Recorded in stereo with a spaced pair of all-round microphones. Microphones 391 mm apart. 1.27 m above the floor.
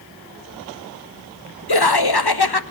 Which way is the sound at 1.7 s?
70° left (ahead or behind).